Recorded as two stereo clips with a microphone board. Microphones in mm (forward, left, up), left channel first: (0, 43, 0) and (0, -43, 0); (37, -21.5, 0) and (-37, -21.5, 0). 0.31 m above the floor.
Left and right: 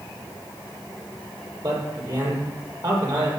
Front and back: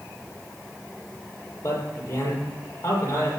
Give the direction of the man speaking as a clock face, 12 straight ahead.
2 o'clock.